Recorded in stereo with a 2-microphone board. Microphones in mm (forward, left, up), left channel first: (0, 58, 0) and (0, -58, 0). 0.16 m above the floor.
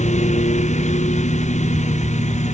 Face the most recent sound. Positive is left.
turn(degrees=85)